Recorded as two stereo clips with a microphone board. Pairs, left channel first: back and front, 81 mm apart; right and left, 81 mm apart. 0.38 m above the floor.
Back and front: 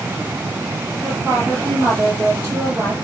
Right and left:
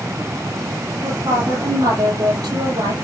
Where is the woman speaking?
60° left, 8.5 m.